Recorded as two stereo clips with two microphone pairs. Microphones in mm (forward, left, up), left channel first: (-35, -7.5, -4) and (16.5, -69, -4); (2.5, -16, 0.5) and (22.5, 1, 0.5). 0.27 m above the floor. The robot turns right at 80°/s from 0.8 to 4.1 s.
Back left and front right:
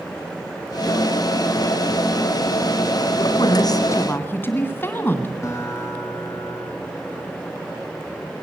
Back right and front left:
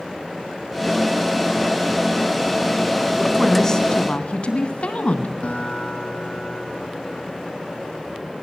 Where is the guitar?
175° right, 2.5 m.